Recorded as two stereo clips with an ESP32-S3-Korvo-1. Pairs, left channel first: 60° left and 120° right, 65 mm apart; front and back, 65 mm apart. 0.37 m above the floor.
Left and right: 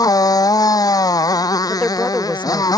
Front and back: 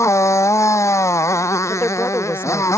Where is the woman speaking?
10° left.